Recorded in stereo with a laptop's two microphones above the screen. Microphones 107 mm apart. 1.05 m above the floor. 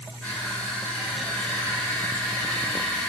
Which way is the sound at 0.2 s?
15° left (ahead or behind).